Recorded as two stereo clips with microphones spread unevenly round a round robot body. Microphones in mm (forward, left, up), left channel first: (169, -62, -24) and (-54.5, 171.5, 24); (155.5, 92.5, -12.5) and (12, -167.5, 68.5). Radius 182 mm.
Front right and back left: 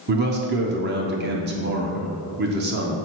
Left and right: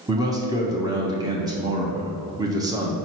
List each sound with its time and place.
0.1 s a man speaking: 140° left, 0.8 m